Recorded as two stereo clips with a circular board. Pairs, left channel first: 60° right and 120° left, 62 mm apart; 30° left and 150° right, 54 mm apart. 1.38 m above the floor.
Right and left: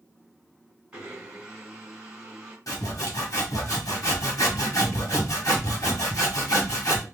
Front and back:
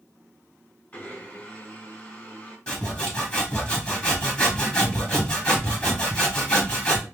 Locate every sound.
0.9 s a blender: 60° left, 1.3 m
2.7 s sawing: 40° right, 1.1 m